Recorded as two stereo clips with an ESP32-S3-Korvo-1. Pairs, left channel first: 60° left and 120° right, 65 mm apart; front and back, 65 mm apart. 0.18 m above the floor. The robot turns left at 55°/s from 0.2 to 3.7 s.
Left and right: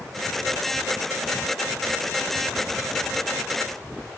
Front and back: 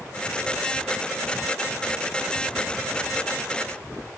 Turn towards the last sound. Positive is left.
No sound to turn to.